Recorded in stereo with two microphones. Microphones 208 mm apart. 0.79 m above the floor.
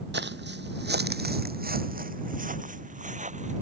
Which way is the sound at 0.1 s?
60° right (ahead or behind).